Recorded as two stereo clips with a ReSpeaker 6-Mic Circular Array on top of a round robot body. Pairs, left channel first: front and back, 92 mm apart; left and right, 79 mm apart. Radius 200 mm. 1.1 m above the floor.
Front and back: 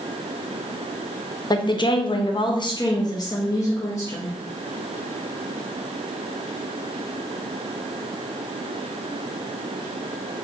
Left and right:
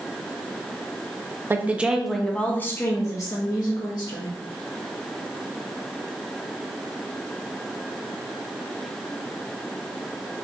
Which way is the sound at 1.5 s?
30° right.